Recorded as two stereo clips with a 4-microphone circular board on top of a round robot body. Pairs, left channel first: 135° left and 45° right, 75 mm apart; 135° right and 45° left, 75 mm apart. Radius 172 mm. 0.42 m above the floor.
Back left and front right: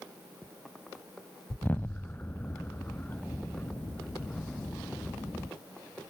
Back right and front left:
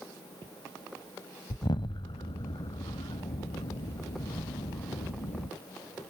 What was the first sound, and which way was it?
An explosion, 155° right.